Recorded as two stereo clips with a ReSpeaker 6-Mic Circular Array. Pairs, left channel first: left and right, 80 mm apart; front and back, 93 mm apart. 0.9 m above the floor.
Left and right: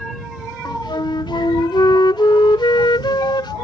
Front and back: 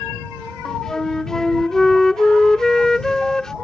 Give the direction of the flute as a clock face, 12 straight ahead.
9 o'clock.